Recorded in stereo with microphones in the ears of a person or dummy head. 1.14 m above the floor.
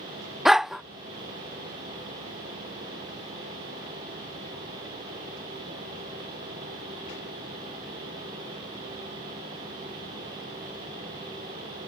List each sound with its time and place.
0.5 s a dog barking: 5° right (ahead or behind)